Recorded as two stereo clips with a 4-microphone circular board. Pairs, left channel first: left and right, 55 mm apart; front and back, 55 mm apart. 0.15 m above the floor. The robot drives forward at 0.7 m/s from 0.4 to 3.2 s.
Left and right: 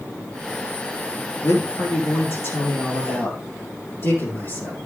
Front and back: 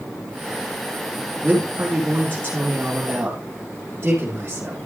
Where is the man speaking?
115° left, 4 m; by 4.8 s 130° left, 5 m.